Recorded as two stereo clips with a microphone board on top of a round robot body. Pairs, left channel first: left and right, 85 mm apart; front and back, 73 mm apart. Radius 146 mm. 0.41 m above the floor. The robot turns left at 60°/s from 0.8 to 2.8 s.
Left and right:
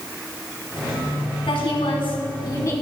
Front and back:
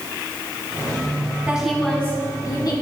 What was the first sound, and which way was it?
A woman speaking, 105° left.